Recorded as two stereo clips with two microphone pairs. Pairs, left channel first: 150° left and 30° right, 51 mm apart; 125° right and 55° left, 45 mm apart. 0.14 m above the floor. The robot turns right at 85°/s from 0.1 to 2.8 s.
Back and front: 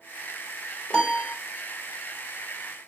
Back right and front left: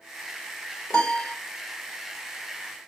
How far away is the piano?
About 1.2 m.